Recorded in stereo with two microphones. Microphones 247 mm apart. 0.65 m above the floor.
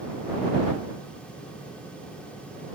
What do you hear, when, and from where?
Only background noise.